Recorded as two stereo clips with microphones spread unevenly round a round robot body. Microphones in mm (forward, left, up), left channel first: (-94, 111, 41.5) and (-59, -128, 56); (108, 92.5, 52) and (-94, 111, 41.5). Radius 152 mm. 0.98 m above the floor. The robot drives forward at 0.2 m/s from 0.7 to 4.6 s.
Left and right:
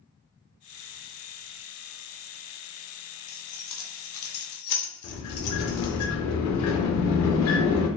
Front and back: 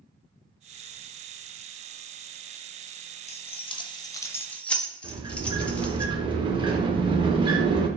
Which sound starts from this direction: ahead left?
Keys jangling, at 3.3 s.